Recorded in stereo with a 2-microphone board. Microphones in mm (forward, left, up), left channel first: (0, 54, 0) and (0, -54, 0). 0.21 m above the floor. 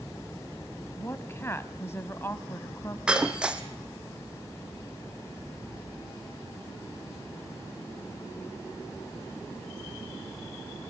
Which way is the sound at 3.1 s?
10° right (ahead or behind).